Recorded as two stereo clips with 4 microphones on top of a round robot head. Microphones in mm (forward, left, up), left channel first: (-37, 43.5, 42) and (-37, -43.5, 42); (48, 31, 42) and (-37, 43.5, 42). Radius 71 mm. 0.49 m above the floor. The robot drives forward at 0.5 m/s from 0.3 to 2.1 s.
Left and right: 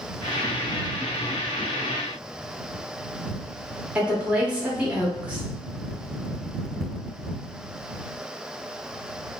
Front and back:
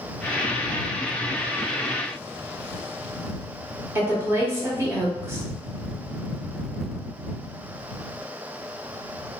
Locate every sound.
4.0 s a woman speaking: 155° right, 0.8 m